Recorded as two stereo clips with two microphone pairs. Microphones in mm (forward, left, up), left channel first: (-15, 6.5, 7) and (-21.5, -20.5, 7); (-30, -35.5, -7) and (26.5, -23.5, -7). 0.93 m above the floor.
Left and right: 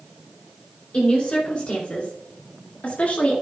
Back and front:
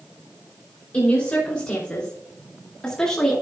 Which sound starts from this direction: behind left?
A woman speaking, at 0.9 s.